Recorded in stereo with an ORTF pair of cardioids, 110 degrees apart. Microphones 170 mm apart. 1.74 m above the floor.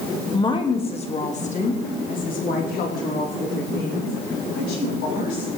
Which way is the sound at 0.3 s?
25° left.